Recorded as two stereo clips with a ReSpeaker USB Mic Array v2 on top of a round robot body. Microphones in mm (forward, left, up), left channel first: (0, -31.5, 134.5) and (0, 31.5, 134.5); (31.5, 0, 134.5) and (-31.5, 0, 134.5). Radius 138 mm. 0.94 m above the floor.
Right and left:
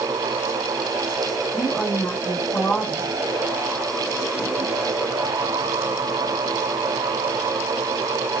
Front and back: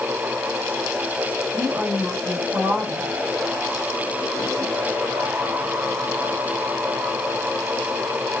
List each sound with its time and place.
1.5 s a woman speaking: 135° right, 5.5 m